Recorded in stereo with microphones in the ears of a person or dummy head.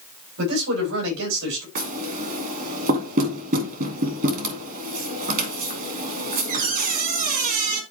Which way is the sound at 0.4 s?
85° right.